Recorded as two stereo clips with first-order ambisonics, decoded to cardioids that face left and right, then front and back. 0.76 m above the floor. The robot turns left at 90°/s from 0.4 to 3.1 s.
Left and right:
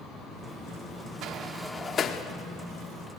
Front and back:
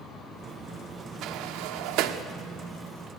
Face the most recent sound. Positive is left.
turn(degrees=55)